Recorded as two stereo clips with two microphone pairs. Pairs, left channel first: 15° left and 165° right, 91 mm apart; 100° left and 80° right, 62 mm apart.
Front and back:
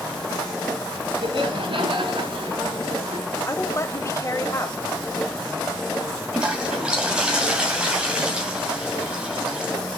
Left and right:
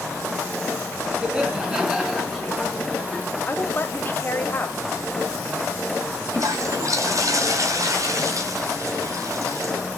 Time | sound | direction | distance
1.2 | laughter | 155° right | 3 m
3.5 | a woman speaking | 60° left | 1.5 m
6.3 | a toilet flushing | 90° right | 2.5 m